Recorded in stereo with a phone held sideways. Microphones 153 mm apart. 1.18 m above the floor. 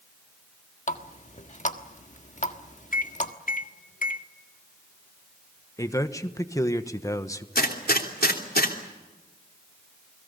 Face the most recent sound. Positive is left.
turn(degrees=80)